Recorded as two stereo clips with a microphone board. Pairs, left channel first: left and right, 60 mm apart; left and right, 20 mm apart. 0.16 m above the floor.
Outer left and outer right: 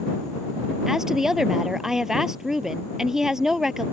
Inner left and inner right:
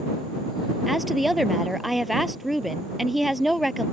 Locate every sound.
0.9 s a woman speaking: 10° right (ahead or behind)